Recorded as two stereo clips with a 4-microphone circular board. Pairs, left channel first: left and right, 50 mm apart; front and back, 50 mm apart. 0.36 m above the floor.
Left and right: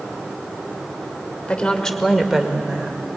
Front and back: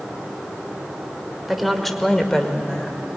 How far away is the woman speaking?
About 1.3 m.